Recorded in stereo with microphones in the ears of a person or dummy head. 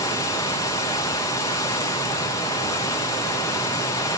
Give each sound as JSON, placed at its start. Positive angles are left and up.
{"t": 0.0, "sound": "running water", "side_deg": 20, "distance_m": 0.8}